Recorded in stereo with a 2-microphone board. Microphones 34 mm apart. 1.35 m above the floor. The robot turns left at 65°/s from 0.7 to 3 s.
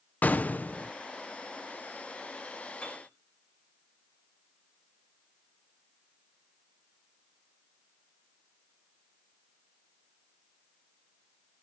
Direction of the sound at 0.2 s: 55° left (ahead or behind).